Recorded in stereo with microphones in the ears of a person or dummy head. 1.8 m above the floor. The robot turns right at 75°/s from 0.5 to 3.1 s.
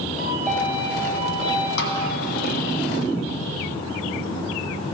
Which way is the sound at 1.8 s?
65° left (ahead or behind).